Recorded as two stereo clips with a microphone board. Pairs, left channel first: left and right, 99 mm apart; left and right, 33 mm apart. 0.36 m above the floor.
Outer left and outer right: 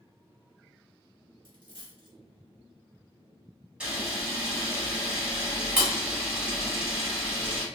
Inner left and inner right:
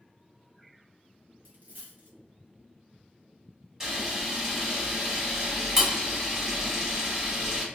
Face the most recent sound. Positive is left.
turn(degrees=-10)  # may be behind; listen again after turning